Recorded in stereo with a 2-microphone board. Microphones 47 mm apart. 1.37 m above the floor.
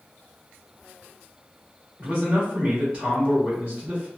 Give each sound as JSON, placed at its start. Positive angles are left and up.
{"t": 2.0, "sound": "a man speaking", "side_deg": -30, "distance_m": 1.3}